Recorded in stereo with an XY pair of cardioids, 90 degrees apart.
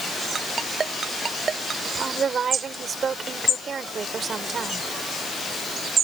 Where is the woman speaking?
50° right.